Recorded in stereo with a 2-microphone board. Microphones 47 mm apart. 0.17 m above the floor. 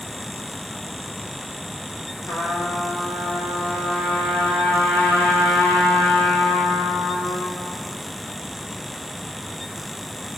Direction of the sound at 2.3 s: 75° left (ahead or behind).